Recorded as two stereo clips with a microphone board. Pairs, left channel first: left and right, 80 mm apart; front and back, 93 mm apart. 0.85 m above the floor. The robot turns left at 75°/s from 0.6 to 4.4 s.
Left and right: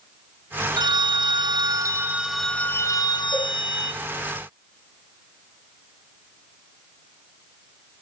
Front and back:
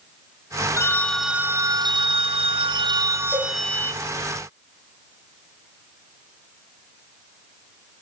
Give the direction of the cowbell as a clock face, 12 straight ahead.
9 o'clock.